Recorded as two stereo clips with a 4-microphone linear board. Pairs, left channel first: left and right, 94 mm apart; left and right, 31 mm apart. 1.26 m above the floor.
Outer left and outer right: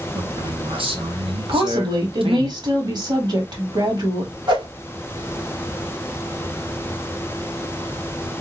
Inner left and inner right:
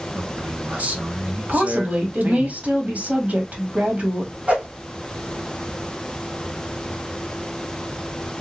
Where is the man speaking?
65° right (ahead or behind), 1.6 m.